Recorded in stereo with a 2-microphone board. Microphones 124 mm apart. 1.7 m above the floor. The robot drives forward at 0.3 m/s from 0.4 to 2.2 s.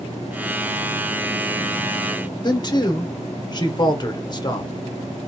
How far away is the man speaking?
About 0.8 m.